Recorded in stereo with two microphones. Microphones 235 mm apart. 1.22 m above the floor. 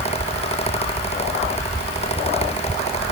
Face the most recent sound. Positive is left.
No sound to turn to.